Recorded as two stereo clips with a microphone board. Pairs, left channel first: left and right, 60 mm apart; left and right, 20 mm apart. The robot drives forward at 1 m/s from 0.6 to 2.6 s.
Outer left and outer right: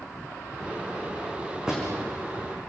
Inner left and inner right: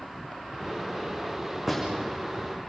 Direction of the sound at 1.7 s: 10° right (ahead or behind).